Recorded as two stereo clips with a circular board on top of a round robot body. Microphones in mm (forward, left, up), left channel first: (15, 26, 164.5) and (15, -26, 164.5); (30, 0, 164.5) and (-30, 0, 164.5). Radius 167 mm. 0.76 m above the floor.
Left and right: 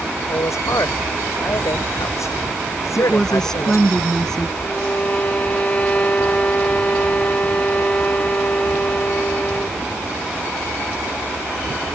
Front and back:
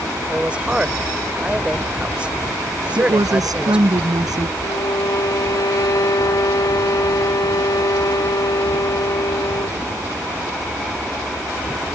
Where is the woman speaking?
170° left.